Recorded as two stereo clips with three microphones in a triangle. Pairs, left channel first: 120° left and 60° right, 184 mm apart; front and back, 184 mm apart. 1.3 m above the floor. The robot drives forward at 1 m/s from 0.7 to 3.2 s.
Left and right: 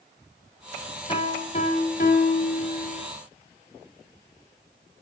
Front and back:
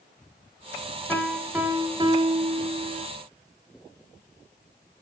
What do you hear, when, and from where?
1.1 s a piano: 75° left, 1.5 m; by 3.1 s 150° left, 2.5 m